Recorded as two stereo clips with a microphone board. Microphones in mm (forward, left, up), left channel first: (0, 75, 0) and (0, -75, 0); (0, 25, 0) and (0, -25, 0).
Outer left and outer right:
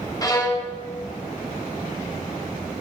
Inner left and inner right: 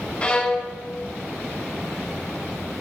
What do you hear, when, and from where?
0.2 s a violin: 25° left (ahead or behind), 0.8 m